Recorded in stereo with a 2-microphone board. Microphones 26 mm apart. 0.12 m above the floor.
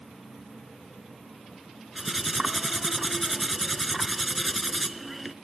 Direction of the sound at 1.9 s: 5° right (ahead or behind).